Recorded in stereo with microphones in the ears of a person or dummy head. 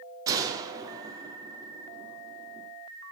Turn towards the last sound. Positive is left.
turn(degrees=-25)  # may be behind; listen again after turning